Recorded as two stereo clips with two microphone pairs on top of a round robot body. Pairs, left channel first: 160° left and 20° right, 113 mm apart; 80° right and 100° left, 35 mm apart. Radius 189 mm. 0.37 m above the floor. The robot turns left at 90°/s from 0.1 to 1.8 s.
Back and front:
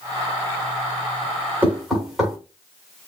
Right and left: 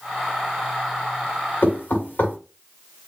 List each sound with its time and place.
1.6 s knocking: 90° right, 2.5 m; by 2.4 s 105° right, 2.5 m